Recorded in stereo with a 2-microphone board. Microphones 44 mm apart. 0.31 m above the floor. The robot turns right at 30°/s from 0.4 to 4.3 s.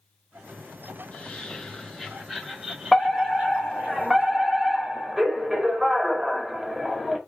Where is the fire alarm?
5° left (ahead or behind), 2 m; by 7.2 s 10° right (ahead or behind), 2 m.